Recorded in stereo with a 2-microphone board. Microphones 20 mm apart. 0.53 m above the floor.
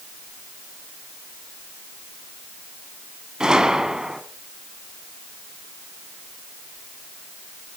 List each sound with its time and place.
3.4 s a gunshot: 45° right (ahead or behind), 1.5 m